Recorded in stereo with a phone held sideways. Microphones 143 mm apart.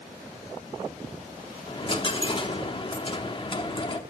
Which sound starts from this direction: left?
A dropped coin, at 1.7 s.